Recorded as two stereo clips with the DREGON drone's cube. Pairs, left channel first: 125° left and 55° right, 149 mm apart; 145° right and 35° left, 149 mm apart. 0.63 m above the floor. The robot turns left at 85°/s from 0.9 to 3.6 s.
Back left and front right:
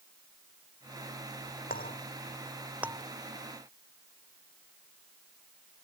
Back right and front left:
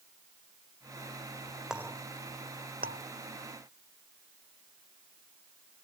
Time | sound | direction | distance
1.7 | a clink | 120° left | ?